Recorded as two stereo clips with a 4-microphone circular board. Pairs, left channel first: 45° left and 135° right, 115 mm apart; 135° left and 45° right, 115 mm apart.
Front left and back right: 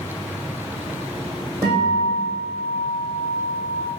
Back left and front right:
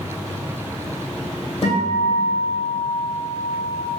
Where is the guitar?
170° left, 1.9 m.